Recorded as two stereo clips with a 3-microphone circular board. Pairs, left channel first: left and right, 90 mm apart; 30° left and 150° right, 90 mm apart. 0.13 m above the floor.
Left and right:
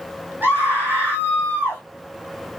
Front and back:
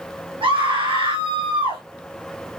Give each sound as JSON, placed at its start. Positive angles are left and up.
{"t": 0.4, "sound": "a scream", "azimuth_deg": -160, "distance_m": 5.5}